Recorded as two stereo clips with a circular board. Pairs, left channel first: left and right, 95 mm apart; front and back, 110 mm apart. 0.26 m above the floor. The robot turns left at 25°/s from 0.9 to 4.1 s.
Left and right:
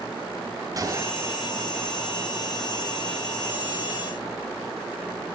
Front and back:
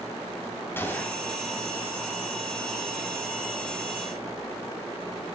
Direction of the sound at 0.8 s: 60° right.